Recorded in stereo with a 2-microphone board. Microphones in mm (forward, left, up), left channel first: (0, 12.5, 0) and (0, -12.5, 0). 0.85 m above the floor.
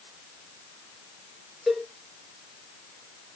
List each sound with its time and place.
1.7 s a cowbell: 5° right (ahead or behind), 3 m